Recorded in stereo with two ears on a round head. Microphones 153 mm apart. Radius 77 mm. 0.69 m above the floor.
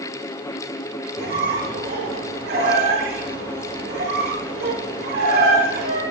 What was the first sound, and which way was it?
A squeak, 60° right (ahead or behind).